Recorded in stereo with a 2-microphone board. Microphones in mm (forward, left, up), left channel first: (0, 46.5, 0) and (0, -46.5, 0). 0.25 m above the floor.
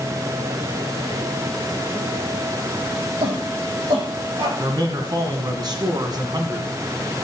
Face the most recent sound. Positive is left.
turn(degrees=-50)  # may be behind; listen again after turning